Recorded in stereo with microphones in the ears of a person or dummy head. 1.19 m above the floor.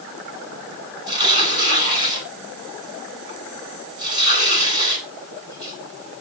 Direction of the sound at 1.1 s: 25° right (ahead or behind).